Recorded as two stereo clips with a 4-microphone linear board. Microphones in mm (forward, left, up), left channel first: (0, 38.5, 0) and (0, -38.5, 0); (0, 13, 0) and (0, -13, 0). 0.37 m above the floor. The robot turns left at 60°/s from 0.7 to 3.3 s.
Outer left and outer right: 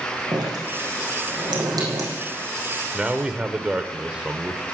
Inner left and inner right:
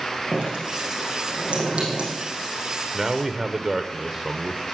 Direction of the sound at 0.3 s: 60° right (ahead or behind).